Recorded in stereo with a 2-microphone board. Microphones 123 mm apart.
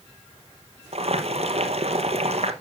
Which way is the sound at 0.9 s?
55° right (ahead or behind).